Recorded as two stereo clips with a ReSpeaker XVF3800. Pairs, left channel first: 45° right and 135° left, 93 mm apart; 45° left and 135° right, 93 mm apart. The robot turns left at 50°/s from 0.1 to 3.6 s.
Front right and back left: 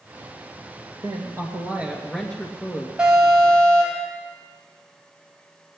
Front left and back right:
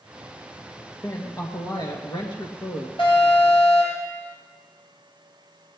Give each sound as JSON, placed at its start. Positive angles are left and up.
{"t": 1.0, "sound": "a woman speaking", "azimuth_deg": 100, "distance_m": 2.5}
{"t": 3.0, "sound": "an alarm", "azimuth_deg": 55, "distance_m": 6.5}